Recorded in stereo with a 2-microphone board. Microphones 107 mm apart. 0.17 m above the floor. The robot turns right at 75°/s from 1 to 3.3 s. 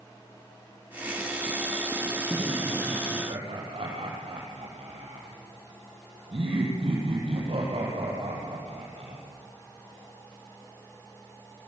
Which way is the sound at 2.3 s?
35° right (ahead or behind).